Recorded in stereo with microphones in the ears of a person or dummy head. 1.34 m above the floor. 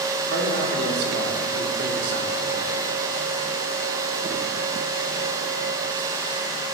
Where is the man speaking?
60° right (ahead or behind), 4.5 m.